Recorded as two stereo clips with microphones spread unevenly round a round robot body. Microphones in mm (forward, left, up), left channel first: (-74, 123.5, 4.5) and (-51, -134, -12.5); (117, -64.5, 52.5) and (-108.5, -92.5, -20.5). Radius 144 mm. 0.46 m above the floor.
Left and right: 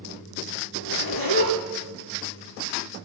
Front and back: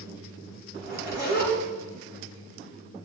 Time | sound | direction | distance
0.7 | a zipper | 140° left | 6 m